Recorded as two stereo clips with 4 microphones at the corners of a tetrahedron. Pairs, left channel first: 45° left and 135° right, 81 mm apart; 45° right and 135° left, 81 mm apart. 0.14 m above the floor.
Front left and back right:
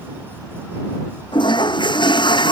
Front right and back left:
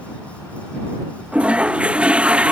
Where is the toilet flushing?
60° left.